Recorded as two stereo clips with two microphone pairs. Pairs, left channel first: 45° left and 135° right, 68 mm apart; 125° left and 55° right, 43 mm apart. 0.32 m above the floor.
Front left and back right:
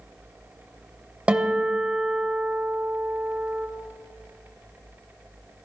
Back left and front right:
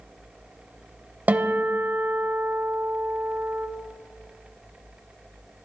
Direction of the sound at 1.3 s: 70° right.